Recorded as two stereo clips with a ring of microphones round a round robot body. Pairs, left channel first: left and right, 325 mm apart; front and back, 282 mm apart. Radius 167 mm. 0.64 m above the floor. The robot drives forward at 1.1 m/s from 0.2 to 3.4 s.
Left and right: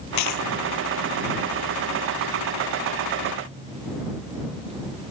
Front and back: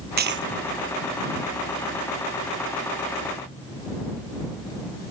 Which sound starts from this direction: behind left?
A dropped coin, at 0.2 s.